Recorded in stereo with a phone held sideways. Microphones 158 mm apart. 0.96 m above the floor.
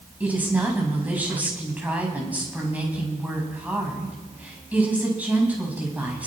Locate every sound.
0.2 s a woman speaking: 10° right (ahead or behind), 5.5 m